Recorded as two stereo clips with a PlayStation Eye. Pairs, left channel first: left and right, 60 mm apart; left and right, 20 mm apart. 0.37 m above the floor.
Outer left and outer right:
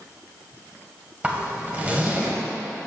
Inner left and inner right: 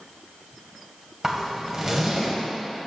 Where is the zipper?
25° right (ahead or behind), 2 m.